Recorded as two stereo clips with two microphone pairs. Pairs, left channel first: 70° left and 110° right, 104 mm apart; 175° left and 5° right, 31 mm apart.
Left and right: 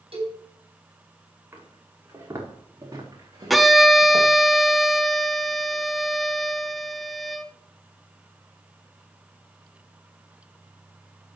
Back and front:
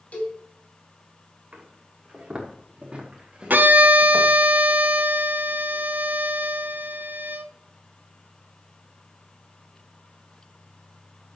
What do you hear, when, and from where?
0.1 s a cowbell: 135° right, 3 m
1.5 s footsteps: 45° right, 4 m; by 4.3 s 60° right, 4.5 m
3.5 s a violin: 20° right, 0.8 m